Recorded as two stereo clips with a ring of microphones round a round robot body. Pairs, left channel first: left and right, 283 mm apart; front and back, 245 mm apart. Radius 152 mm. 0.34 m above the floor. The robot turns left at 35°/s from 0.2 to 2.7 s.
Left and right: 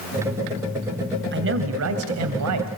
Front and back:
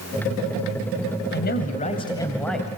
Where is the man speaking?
45° right, 2 m; by 2.7 s 90° right, 2 m.